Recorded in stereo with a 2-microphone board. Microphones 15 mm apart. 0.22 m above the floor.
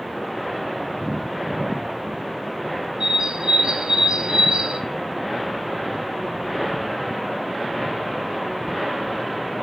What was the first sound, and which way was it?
A bird, 80° right.